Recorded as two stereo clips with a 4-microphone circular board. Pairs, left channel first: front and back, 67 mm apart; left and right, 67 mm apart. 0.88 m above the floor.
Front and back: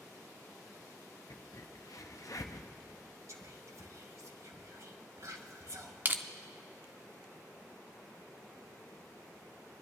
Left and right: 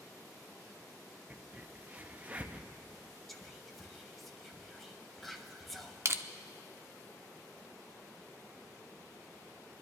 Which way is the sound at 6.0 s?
125° right.